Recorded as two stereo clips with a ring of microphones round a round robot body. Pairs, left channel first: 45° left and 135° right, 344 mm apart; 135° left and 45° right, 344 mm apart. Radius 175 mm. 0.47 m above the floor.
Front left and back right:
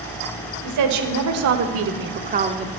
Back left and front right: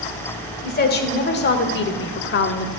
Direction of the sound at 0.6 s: 165° right.